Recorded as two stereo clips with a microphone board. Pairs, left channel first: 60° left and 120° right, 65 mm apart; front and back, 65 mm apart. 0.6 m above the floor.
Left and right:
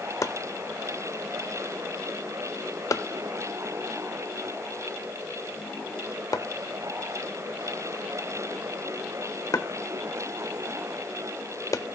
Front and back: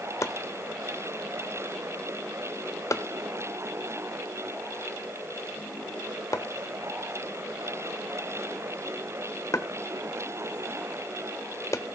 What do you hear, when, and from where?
0.2 s chopping: 35° left, 1.0 m